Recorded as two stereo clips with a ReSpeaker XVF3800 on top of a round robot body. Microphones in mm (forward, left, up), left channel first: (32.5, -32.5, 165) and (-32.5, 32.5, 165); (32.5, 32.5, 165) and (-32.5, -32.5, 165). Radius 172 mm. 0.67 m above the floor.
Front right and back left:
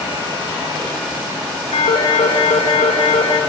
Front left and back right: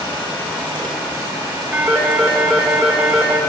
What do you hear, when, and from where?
1.7 s a phone ringing: 55° right, 1.5 m